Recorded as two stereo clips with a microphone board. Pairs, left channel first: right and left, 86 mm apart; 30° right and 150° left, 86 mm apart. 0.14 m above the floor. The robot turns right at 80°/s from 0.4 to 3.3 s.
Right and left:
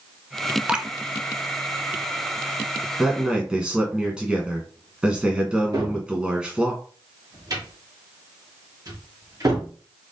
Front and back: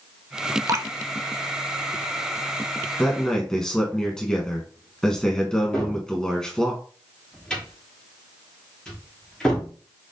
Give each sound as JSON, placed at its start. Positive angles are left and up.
{"t": 0.7, "sound": "dripping", "azimuth_deg": 160, "distance_m": 0.5}
{"t": 3.0, "sound": "a man speaking", "azimuth_deg": 15, "distance_m": 1.2}
{"t": 5.7, "sound": "a cupboard door", "azimuth_deg": 50, "distance_m": 3.5}